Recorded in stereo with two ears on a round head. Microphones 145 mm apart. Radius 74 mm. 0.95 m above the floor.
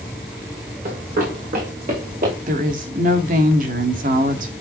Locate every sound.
0.8 s running footsteps: 55° right (ahead or behind), 5 m; by 2.4 s 50° right (ahead or behind), 6 m
2.5 s a woman speaking: 50° right (ahead or behind), 2 m